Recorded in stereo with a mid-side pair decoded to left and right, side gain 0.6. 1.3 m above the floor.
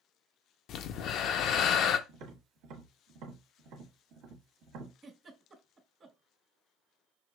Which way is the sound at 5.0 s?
35° right.